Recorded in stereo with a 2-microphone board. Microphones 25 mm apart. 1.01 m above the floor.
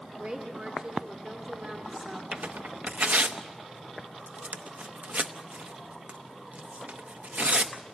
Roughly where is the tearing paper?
Right.